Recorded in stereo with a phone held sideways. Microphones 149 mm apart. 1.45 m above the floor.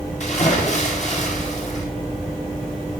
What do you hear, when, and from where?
0.2 s a splash: 55° left (ahead or behind), 7 m